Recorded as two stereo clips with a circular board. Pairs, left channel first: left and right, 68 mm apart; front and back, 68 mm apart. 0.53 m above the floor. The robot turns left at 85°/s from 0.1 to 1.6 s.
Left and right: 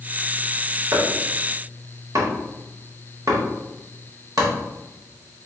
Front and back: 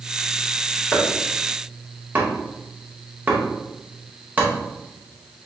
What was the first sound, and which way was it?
Chopping, 60° right.